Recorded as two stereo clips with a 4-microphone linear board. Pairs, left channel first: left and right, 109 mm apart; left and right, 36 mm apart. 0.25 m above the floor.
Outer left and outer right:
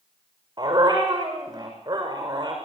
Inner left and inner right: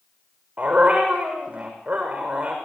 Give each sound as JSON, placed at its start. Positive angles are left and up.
{"t": 0.6, "sound": "a dog barking", "side_deg": -35, "distance_m": 6.5}